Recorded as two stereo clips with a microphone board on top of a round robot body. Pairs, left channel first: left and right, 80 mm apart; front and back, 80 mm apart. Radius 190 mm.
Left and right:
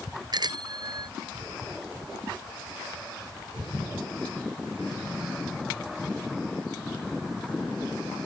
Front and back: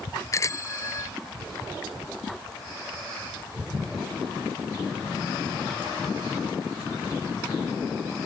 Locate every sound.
0.3 s a bicycle bell: 55° right